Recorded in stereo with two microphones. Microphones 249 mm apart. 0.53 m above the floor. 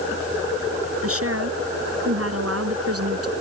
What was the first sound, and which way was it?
A woman speaking, 65° right (ahead or behind).